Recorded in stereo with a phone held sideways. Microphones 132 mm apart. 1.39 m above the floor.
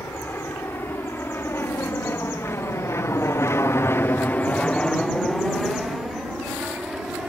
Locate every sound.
0.0 s an aircraft: 15° left (ahead or behind); by 7.3 s 5° right (ahead or behind)